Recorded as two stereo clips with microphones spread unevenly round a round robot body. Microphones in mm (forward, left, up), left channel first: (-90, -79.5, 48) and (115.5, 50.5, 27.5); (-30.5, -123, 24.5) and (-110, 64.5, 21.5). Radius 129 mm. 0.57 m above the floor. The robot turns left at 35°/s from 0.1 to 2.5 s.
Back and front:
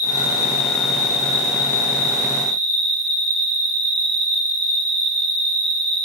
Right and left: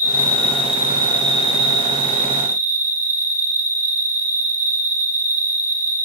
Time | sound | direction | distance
0.0 | an insect | 170° right | 6.5 m